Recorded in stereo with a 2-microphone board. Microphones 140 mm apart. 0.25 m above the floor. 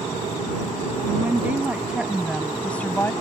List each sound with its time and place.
1.1 s a woman speaking: 15° right (ahead or behind); by 3.1 s 20° left (ahead or behind)